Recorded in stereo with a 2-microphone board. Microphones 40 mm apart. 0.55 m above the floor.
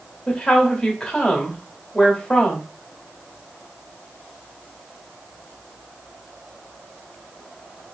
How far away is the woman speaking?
About 1.2 m.